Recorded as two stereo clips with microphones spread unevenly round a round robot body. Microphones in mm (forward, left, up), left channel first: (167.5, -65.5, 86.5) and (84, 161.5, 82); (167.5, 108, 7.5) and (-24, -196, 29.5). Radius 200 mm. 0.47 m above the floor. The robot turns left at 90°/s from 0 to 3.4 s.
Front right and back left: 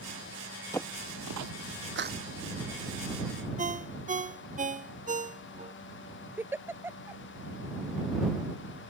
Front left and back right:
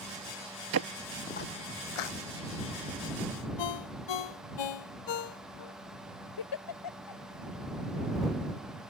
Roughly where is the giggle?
Ahead left.